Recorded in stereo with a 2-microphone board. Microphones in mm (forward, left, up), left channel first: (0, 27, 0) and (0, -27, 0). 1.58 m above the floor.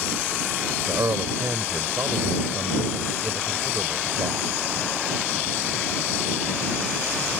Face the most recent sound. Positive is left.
turn(degrees=-80)